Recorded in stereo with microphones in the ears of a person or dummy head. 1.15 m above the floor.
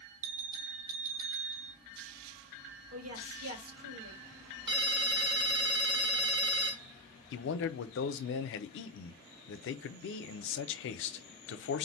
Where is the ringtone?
25° right (ahead or behind), 1.7 m.